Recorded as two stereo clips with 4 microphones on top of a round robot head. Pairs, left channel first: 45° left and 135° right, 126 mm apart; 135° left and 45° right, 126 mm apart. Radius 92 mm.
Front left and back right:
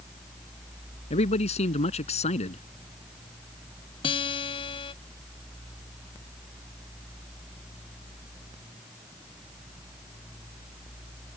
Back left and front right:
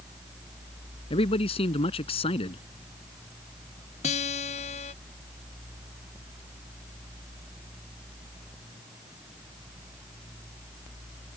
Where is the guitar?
95° left.